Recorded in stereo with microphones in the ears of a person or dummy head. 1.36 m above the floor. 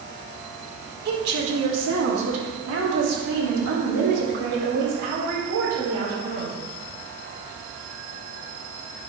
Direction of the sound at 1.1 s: 60° right (ahead or behind).